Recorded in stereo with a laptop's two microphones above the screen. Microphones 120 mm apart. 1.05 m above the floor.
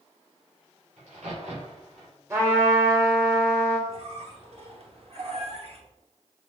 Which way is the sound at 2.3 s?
20° right (ahead or behind).